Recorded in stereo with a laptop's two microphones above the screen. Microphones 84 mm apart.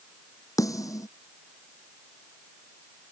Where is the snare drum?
45° left (ahead or behind).